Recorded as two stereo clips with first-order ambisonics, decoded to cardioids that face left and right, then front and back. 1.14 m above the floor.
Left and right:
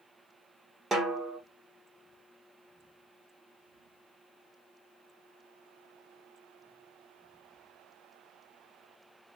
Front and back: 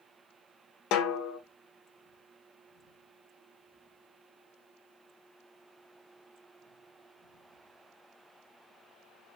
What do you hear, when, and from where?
0.9 s a snare drum: 20° right, 1.1 m